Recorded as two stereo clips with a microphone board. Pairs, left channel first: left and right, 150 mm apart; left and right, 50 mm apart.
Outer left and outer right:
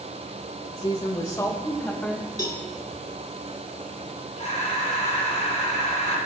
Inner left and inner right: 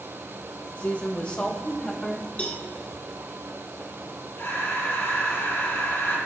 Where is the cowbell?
30° left (ahead or behind), 2 m.